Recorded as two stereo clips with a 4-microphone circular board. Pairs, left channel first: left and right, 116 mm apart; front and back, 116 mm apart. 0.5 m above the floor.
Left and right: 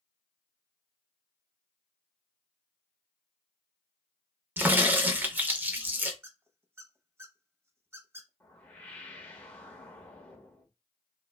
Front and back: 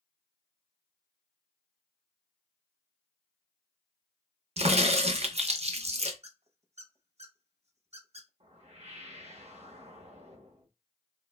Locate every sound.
4.6 s a crack: 165° right, 0.5 m
6.2 s a squeak: 160° right, 0.6 m
8.4 s a whoosh: 165° left, 0.8 m